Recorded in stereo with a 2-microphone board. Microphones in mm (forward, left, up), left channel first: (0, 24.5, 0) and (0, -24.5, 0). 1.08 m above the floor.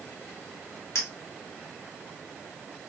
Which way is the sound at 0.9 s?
65° left (ahead or behind).